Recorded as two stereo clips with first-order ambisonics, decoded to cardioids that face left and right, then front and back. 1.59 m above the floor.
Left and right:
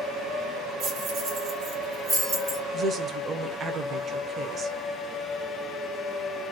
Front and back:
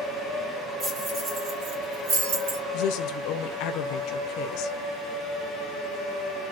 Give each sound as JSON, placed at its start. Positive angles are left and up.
{"t": 0.8, "sound": "keys jangling", "azimuth_deg": -115, "distance_m": 1.5}
{"t": 2.7, "sound": "a woman speaking", "azimuth_deg": -25, "distance_m": 0.7}